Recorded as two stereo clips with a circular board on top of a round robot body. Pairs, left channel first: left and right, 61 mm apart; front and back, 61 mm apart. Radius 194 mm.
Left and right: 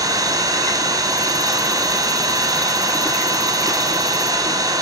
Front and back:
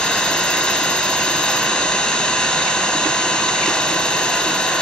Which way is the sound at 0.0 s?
75° right.